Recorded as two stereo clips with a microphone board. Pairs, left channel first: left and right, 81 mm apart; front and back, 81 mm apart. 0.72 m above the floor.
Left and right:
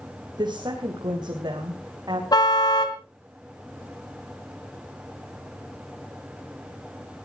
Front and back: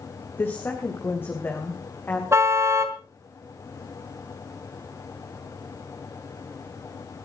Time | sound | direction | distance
0.4 | a woman speaking | 60° right | 3 m
2.3 | a car horn | 125° left | 2 m